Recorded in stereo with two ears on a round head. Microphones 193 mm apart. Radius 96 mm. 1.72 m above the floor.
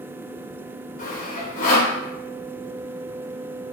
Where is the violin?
I don't hear a violin.